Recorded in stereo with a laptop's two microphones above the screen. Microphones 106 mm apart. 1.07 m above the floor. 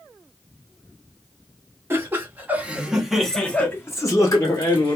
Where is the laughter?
25° right (ahead or behind), 1.2 m; by 5.0 s 40° left (ahead or behind), 1.0 m.